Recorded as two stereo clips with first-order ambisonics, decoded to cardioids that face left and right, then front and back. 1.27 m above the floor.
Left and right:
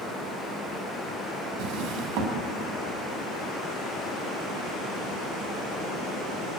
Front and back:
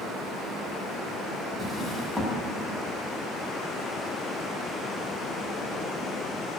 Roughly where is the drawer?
Right.